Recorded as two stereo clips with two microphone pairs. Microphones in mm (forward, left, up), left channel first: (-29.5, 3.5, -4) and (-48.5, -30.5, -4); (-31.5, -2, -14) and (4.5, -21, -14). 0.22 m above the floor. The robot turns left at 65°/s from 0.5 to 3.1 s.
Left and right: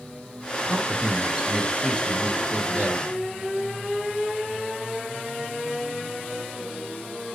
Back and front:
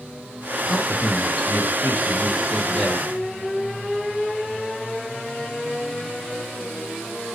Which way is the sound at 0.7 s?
155° right.